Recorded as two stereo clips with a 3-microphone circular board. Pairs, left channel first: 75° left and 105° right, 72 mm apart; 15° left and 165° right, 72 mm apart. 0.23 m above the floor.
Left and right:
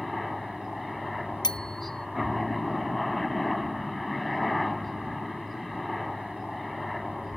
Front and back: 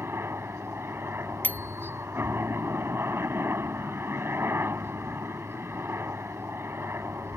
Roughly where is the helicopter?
Behind.